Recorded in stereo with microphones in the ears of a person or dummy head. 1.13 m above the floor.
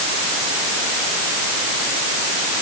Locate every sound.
Only background noise.